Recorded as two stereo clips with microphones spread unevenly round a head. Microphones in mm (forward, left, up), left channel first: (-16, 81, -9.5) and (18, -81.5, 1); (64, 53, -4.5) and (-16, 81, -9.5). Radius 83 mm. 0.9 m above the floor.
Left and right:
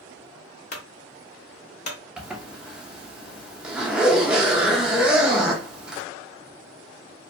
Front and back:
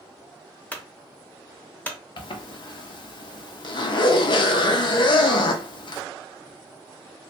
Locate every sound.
0.7 s a clunk: 50° left, 0.7 m
2.2 s a zipper: 10° left, 0.5 m